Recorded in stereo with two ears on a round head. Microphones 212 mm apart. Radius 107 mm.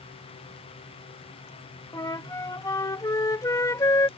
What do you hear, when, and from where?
1.9 s a flute: 15° left (ahead or behind)